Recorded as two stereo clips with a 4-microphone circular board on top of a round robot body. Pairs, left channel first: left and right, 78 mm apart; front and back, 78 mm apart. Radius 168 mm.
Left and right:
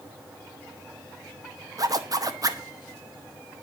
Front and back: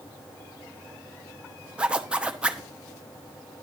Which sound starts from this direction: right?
A zipper, at 1.8 s.